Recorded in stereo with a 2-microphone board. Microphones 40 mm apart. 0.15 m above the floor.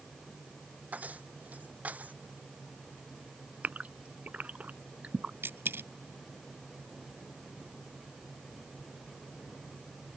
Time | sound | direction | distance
0.9 | keys jangling | 40° right (ahead or behind) | ?
3.6 | a gasp | 40° right (ahead or behind) | ?
5.4 | a dropped coin | 70° right (ahead or behind) | ?